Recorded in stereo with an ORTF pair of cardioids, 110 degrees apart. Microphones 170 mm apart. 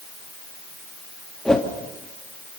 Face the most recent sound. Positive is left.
turn(degrees=5)